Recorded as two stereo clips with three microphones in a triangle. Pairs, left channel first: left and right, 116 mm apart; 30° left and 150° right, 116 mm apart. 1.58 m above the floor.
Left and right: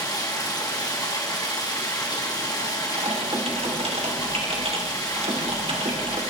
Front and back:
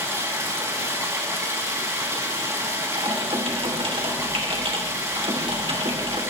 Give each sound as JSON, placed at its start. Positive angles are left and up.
{"t": 0.0, "sound": "running water", "azimuth_deg": 145, "distance_m": 3.0}
{"t": 3.0, "sound": "typing on a keyboard", "azimuth_deg": -115, "distance_m": 3.0}